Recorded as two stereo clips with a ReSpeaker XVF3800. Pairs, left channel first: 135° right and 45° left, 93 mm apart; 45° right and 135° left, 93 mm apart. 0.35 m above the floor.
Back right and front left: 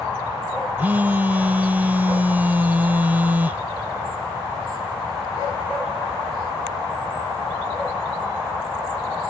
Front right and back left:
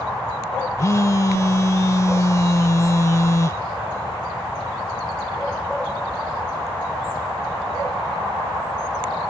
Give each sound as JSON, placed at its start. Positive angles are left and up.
{"t": 0.8, "sound": "a phone buzzing", "azimuth_deg": -15}